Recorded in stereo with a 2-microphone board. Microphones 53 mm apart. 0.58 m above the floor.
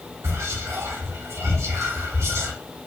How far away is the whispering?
About 1.2 m.